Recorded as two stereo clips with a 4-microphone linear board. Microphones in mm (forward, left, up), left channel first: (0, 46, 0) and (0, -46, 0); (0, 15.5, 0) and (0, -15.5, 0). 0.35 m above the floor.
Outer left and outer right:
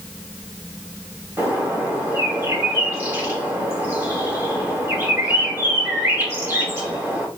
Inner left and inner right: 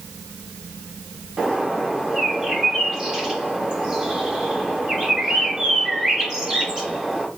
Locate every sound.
1.4 s a bird: 25° right (ahead or behind), 1.7 m